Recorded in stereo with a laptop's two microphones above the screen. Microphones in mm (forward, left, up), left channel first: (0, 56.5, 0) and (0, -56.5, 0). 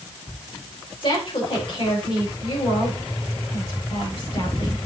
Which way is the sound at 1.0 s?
45° left (ahead or behind).